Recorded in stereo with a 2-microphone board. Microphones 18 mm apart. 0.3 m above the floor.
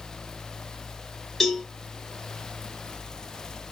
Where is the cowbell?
20° left (ahead or behind), 0.8 m.